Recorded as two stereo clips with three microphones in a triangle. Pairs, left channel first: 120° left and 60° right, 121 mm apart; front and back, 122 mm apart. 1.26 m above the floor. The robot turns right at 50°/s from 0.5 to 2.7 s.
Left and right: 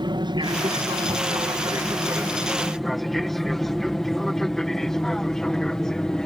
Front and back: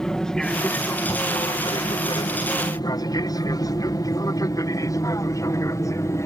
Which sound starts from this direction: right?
An aircraft, at 0.0 s.